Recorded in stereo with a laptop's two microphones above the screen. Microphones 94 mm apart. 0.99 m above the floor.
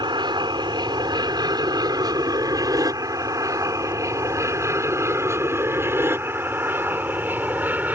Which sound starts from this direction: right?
An aircraft, at 0.0 s.